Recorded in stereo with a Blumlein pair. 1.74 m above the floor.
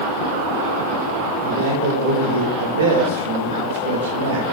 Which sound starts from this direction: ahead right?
A man speaking, at 1.4 s.